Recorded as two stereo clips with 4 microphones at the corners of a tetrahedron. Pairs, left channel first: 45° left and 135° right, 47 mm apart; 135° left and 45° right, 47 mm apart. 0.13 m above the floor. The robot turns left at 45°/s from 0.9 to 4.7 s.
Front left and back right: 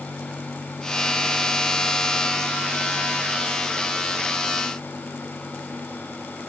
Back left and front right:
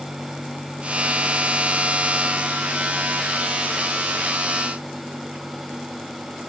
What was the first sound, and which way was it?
Only background noise.